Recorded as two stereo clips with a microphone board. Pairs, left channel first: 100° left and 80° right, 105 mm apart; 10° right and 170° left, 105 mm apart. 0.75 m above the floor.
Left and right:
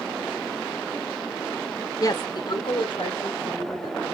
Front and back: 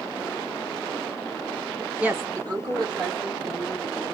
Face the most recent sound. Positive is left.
turn(degrees=135)